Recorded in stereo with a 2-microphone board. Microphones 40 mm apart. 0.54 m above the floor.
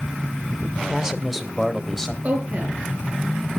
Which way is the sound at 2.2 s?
35° right (ahead or behind).